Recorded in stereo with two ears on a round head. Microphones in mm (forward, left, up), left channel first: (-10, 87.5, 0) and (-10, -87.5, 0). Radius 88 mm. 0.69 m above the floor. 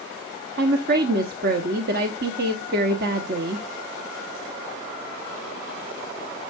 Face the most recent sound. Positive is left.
turn(degrees=-50)  # may be behind; listen again after turning